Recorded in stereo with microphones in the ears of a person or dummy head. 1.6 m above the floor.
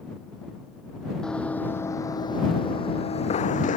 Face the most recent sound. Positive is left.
turn(degrees=40)  # may be behind; listen again after turning